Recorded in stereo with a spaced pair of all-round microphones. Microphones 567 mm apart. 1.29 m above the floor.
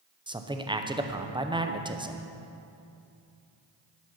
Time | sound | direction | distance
0.3 | a man speaking | 10° right (ahead or behind) | 0.6 m